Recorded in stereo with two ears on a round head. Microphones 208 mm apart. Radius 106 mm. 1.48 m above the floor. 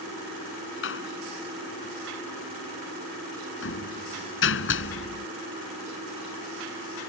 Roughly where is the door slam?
Left.